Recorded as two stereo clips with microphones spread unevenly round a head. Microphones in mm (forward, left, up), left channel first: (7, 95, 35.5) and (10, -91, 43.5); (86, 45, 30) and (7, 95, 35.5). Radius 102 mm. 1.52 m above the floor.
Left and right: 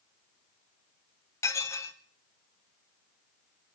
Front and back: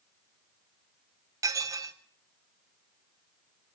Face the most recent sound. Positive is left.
turn(degrees=160)